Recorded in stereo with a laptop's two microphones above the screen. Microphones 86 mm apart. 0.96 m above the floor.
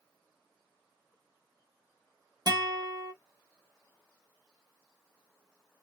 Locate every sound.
2.5 s a guitar: 55° right (ahead or behind), 1.4 m